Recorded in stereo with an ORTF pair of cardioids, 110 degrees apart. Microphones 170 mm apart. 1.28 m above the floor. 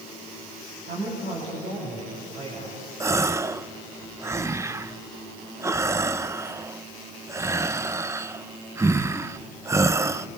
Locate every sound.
0.9 s a woman speaking: 50° right, 8.5 m
3.0 s a gasp: 15° right, 0.7 m